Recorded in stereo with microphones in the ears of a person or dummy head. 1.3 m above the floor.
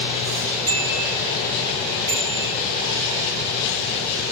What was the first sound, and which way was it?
A bicycle bell, 35° right (ahead or behind).